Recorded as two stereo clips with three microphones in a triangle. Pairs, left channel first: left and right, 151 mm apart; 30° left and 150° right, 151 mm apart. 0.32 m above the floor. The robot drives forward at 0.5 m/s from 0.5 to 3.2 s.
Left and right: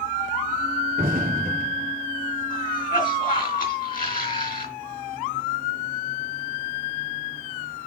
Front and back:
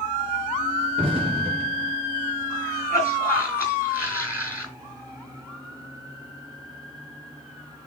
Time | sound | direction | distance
1.0 | an explosion | 95° right | 3 m
2.5 | a cough | 95° left | 2.5 m